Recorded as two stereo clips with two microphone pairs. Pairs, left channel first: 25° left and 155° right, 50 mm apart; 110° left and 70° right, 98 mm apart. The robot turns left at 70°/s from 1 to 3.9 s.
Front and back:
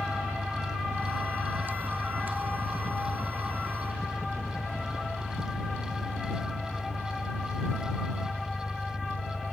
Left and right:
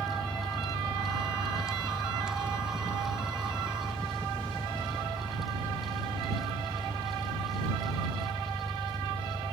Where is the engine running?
160° right; by 9.5 s straight ahead.